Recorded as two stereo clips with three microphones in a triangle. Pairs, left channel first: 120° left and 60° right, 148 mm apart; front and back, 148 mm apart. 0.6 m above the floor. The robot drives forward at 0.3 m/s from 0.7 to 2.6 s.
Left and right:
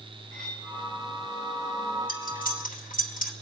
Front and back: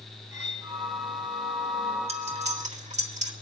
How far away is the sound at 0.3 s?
About 3 m.